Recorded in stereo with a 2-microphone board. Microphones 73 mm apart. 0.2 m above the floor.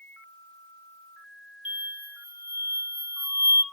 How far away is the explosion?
About 0.7 m.